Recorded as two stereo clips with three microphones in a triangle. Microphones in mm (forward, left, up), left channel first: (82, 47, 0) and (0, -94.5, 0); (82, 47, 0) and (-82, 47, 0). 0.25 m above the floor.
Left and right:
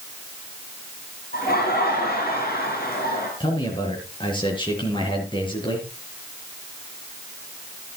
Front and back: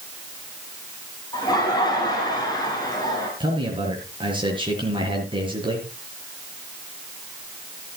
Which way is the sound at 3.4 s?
120° left.